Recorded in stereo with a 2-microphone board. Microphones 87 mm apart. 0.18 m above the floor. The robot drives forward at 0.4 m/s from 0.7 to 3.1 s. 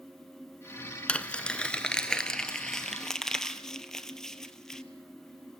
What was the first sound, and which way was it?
Crumpling, 15° left (ahead or behind).